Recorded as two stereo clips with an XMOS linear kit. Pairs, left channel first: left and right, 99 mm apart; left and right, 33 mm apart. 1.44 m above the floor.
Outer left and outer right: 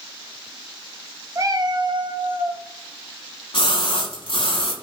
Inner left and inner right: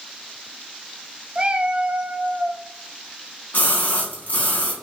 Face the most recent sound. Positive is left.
turn(degrees=65)  # may be behind; listen again after turning